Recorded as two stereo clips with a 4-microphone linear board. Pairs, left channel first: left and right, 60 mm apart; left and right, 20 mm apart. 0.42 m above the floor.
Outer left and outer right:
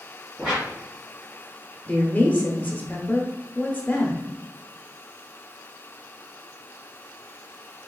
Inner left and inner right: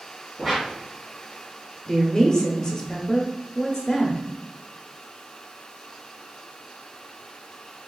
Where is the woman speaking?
25° left (ahead or behind), 0.8 m.